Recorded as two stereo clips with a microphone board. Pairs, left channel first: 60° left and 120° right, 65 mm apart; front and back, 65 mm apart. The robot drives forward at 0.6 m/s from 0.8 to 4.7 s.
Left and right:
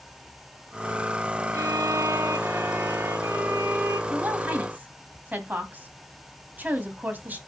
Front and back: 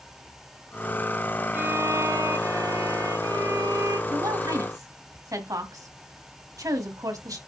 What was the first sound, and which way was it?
A violin, 130° right.